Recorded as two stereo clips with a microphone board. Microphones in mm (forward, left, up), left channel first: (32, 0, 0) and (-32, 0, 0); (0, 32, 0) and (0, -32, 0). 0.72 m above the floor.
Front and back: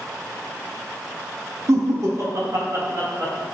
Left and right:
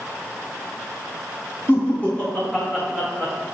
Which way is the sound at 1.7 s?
150° left.